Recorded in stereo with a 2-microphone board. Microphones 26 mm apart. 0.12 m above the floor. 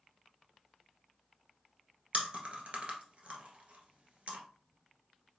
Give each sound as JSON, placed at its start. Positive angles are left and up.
{"t": 2.1, "sound": "chewing", "side_deg": -45, "distance_m": 1.3}